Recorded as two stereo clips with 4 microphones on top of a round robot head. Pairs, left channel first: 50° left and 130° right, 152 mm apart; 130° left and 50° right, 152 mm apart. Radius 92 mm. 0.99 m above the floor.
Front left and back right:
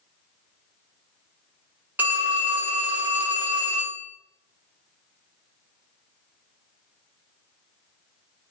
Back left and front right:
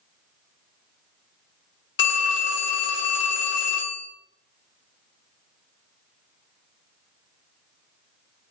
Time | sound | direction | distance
2.0 | a phone ringing | 145° left | 0.9 m